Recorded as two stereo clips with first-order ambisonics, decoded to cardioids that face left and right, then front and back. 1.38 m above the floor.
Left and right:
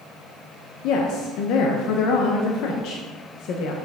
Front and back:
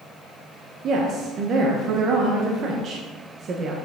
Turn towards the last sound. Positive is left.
turn(degrees=125)